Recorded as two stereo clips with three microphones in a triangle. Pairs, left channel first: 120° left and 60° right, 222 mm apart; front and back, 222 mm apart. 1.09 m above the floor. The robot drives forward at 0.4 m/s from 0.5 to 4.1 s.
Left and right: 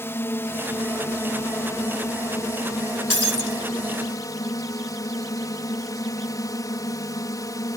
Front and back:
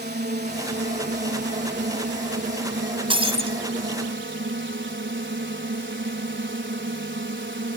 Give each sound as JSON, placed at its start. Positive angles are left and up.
{"t": 0.0, "sound": "a drone", "azimuth_deg": -165}
{"t": 3.1, "sound": "breaking glass", "azimuth_deg": 115}